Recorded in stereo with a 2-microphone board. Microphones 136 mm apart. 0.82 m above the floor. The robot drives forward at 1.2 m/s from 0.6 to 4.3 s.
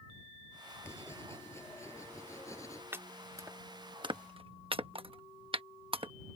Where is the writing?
20° left (ahead or behind); by 2.8 s 25° left (ahead or behind).